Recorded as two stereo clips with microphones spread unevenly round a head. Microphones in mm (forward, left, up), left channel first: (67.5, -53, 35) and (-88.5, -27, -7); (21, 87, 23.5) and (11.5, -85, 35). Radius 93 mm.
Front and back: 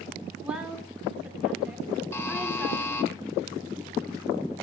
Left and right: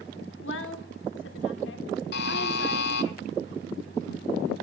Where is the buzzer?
60° left, 1.2 m.